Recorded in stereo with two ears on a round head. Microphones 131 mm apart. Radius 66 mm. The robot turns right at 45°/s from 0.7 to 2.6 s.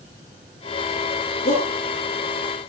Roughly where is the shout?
Left.